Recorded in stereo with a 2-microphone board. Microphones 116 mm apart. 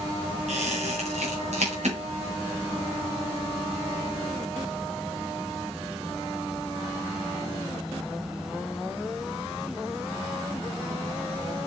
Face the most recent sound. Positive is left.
turn(degrees=-85)